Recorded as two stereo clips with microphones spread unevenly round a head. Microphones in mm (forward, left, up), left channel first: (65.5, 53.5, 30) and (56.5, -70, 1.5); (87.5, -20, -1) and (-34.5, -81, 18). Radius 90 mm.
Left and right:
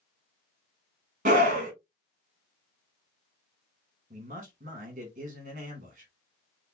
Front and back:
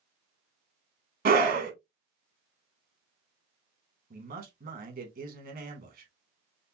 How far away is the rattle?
No rattle in this recording.